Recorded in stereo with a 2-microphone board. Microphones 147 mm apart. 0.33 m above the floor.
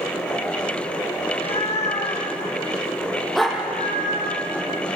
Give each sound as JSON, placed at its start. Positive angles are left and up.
{"t": 1.2, "sound": "a cat meowing", "side_deg": 40, "distance_m": 4.5}
{"t": 3.4, "sound": "a dog barking", "side_deg": 0, "distance_m": 4.0}